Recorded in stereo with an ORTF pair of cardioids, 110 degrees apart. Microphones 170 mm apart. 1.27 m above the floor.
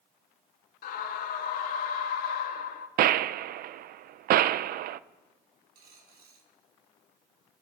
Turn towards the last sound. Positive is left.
turn(degrees=-70)